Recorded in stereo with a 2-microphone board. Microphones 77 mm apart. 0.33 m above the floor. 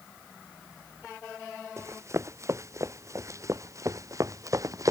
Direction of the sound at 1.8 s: 40° right (ahead or behind).